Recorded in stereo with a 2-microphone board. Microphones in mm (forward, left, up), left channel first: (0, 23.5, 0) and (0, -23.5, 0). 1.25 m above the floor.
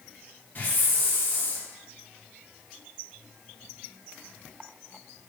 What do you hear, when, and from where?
0.6 s a hiss: 40° left (ahead or behind), 1.8 m